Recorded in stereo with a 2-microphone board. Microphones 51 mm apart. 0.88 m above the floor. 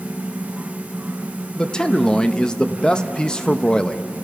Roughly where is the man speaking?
Centre.